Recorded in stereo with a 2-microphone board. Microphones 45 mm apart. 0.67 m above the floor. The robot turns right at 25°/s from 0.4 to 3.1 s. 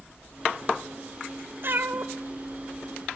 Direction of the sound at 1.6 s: 45° right (ahead or behind).